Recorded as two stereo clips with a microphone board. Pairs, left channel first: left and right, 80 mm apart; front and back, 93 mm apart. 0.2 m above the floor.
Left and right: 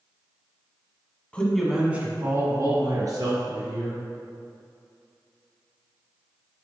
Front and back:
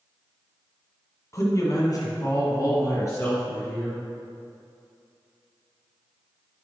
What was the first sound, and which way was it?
A man speaking, 25° left.